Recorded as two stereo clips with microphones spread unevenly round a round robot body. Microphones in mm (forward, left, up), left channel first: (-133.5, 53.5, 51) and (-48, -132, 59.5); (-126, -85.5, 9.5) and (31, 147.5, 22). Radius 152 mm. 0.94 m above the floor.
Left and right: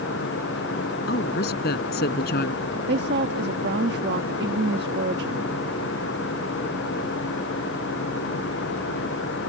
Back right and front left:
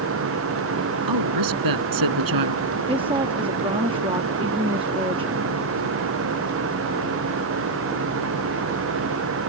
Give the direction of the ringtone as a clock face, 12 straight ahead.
I don't hear a ringtone.